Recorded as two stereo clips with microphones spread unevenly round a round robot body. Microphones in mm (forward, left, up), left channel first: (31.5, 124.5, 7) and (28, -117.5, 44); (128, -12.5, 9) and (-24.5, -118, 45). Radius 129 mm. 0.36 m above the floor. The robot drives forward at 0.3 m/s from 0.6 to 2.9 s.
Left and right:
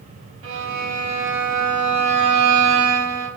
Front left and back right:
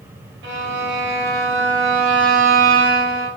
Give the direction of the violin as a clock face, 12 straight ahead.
4 o'clock.